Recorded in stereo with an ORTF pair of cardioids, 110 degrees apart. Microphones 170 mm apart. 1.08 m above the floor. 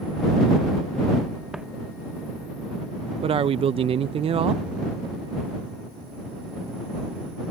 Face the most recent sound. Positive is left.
turn(degrees=-35)